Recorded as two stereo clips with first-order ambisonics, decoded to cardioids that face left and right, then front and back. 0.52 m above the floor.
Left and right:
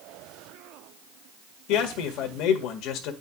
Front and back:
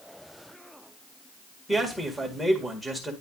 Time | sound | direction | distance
1.7 | a man speaking | 90° left | 1.7 m